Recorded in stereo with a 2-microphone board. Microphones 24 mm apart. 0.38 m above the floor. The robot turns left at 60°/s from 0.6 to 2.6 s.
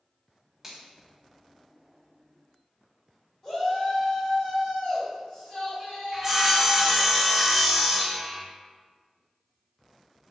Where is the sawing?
10° right (ahead or behind), 0.7 m.